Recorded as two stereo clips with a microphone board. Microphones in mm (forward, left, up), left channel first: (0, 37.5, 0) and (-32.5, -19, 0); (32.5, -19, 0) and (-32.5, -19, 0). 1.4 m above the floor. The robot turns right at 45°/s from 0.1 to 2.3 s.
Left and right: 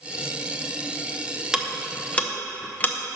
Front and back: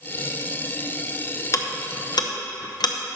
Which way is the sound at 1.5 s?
40° right.